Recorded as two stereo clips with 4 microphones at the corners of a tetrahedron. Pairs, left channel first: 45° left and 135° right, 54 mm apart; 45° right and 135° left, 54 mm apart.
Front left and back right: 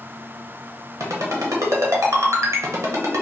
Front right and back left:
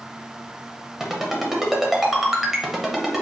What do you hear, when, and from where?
1.0 s a ringtone: 140° right, 0.8 m